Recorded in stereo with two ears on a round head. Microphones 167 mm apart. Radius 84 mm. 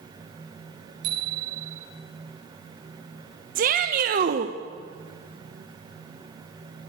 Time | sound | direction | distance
1.0 | a bicycle bell | 60° right (ahead or behind) | 8.5 m
3.5 | a shout | 45° right (ahead or behind) | 1.3 m